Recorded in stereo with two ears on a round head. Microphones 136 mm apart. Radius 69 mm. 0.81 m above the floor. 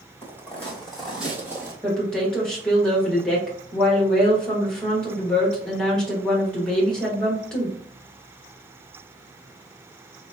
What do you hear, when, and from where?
0.2 s footsteps: 15° left (ahead or behind), 1.9 m; by 1.7 s 20° right (ahead or behind), 1.3 m
1.8 s a woman speaking: 5° left (ahead or behind), 1.2 m